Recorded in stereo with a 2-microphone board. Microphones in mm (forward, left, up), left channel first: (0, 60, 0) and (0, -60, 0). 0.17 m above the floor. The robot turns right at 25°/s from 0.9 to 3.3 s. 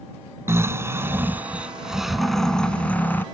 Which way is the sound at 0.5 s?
30° right.